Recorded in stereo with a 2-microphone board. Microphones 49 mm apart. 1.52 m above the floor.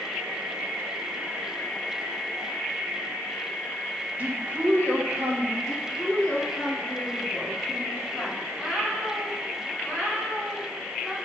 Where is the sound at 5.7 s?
5° left (ahead or behind), 1.4 m.